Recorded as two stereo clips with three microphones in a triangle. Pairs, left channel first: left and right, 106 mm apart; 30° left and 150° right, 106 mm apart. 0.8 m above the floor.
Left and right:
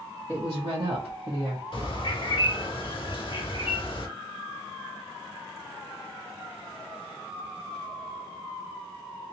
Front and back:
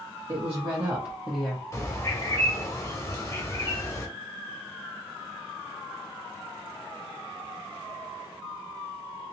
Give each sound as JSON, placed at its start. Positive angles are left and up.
{"t": 0.3, "sound": "a woman speaking", "azimuth_deg": -135, "distance_m": 1.2}
{"t": 1.7, "sound": "a bird", "azimuth_deg": 80, "distance_m": 0.7}